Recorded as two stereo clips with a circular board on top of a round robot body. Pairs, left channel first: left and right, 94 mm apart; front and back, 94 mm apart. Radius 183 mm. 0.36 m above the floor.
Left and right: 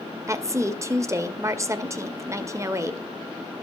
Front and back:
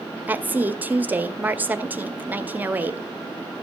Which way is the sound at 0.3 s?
120° right.